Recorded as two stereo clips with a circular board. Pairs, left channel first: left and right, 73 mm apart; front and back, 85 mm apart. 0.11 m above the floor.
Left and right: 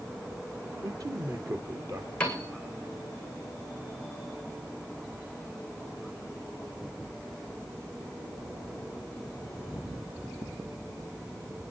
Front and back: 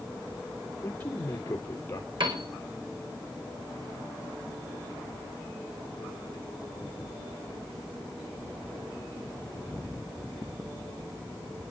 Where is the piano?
165° left, 6 m.